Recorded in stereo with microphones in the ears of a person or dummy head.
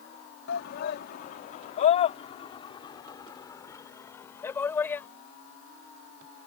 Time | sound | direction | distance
0.5 | a shout | 65° left (ahead or behind) | ?